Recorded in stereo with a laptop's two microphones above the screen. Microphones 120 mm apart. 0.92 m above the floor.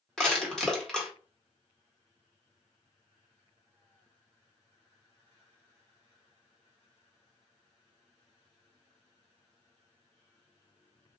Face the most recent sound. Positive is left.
turn(degrees=5)  # may be behind; listen again after turning